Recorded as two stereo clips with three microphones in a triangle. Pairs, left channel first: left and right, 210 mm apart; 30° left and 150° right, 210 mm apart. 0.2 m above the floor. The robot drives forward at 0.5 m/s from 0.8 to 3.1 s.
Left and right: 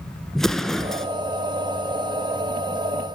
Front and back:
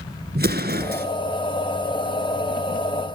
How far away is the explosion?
About 1.8 m.